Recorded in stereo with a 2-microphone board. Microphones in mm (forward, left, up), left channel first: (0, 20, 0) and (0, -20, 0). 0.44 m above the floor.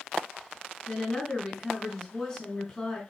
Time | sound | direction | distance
0.9 | a woman speaking | 20° left (ahead or behind) | 3.5 m